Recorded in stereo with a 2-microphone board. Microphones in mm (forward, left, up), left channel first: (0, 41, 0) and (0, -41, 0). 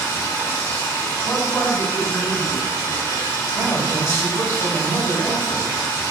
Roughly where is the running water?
Left.